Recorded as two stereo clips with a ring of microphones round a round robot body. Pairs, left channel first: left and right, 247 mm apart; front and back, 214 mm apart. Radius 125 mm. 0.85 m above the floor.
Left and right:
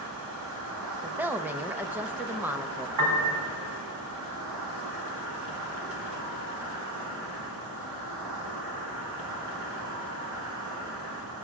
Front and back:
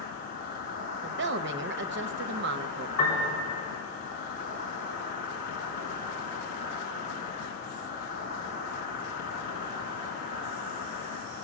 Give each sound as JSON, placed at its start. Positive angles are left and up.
{"t": 0.0, "sound": "an insect", "azimuth_deg": -55, "distance_m": 2.5}
{"t": 1.0, "sound": "a woman speaking", "azimuth_deg": -170, "distance_m": 0.5}
{"t": 3.0, "sound": "a piano", "azimuth_deg": -75, "distance_m": 3.5}